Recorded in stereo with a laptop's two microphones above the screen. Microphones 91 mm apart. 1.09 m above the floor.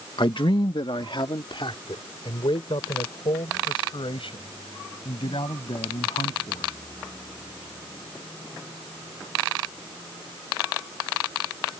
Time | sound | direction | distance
0.2 | a man speaking | 55° left (ahead or behind) | ?